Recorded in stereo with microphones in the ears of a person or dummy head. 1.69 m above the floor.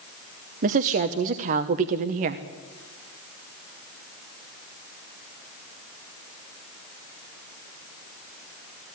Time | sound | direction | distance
0.6 | a woman speaking | 40° right (ahead or behind) | 0.8 m